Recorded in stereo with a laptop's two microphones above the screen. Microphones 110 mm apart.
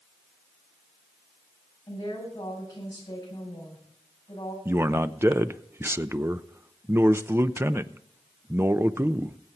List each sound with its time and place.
1.9 s a woman speaking: 35° left (ahead or behind), 7.5 m
4.7 s a man speaking: 25° right (ahead or behind), 0.6 m